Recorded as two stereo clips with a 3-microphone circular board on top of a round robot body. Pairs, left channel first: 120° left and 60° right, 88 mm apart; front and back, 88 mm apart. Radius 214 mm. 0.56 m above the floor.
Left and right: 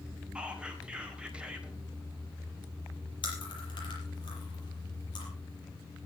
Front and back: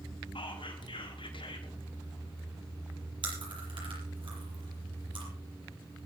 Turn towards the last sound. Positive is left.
turn(degrees=155)